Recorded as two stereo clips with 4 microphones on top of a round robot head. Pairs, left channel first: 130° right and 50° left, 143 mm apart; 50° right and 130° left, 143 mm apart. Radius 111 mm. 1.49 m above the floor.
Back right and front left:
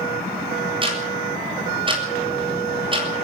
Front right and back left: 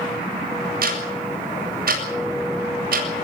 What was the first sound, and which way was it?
Ticking, 105° left.